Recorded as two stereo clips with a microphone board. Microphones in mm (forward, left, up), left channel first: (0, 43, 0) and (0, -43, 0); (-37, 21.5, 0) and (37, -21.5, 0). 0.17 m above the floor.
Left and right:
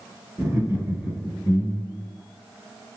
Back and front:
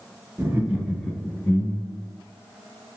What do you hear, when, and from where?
0.4 s laughter: 55° right, 1.2 m; by 2.1 s 170° right, 2.0 m